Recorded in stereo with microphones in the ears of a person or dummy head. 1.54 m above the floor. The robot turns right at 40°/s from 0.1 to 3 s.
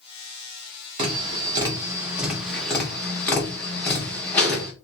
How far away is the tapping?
About 0.9 m.